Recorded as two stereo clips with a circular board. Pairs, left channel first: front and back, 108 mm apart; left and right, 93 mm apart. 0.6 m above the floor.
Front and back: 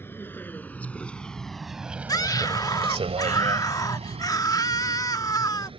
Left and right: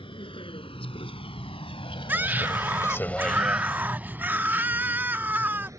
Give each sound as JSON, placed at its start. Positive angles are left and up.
{"t": 0.0, "sound": "a vehicle", "azimuth_deg": 70}
{"t": 2.1, "sound": "a scream", "azimuth_deg": -30}